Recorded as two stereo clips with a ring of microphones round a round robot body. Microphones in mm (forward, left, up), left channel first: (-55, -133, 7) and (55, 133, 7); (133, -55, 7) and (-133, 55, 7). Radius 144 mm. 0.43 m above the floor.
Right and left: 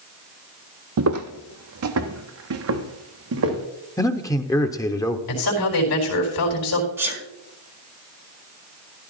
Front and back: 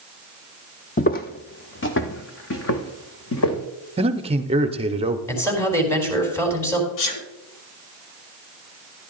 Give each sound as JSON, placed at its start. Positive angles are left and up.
{"t": 1.0, "sound": "footsteps", "azimuth_deg": 40, "distance_m": 0.6}
{"t": 4.0, "sound": "a man speaking", "azimuth_deg": -170, "distance_m": 0.7}
{"t": 5.3, "sound": "a man speaking", "azimuth_deg": -105, "distance_m": 4.0}
{"t": 7.0, "sound": "a sneeze", "azimuth_deg": -15, "distance_m": 3.5}